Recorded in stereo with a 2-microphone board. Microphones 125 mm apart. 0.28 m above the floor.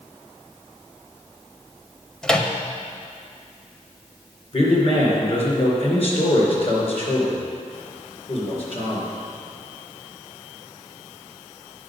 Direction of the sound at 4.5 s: 50° left (ahead or behind).